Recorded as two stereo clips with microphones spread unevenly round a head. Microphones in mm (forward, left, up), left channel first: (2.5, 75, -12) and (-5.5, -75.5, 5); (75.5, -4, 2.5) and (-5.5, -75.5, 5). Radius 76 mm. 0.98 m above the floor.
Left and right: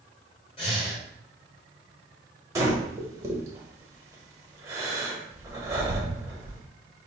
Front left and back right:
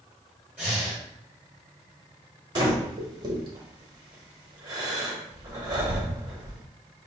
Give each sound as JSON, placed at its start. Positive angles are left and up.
{"t": 0.6, "sound": "breathing", "azimuth_deg": 140, "distance_m": 1.8}
{"t": 2.5, "sound": "breathing", "azimuth_deg": -135, "distance_m": 0.8}